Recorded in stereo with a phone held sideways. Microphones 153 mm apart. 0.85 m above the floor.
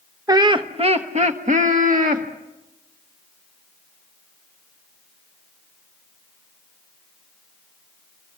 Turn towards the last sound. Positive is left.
turn(degrees=-60)  # may be behind; listen again after turning